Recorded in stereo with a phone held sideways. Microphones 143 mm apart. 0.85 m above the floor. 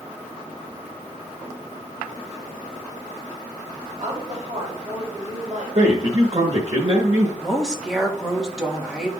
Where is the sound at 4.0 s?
45° right (ahead or behind), 3.5 m.